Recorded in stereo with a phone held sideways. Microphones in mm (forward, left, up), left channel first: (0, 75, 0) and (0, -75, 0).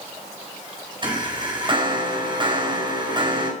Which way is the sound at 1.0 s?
35° right (ahead or behind).